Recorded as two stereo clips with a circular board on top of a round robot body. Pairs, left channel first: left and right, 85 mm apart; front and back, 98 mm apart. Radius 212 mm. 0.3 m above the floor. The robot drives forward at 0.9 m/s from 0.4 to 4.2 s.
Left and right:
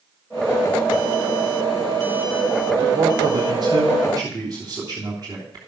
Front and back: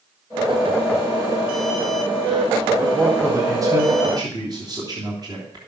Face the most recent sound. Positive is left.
turn(degrees=-135)